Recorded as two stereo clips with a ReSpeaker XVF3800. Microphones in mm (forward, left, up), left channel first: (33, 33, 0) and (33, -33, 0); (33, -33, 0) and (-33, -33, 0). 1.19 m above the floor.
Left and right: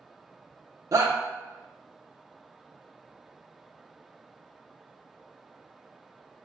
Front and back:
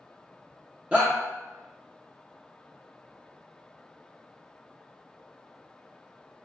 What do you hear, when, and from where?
0.9 s a shout: 110° right, 0.6 m